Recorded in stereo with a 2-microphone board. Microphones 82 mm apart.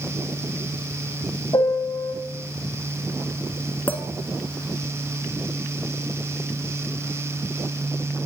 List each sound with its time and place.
1.5 s a piano: 65° left (ahead or behind), 1.0 m
3.9 s a clink: 20° left (ahead or behind), 0.9 m